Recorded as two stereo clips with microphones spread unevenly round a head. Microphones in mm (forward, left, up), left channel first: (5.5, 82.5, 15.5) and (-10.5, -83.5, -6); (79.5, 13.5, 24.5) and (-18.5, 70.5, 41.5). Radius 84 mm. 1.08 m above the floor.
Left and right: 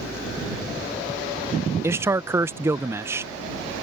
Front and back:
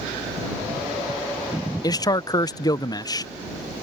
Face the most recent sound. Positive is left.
turn(degrees=-35)